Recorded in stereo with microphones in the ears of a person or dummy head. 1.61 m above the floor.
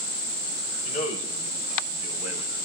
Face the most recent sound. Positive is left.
turn(degrees=35)  # may be behind; listen again after turning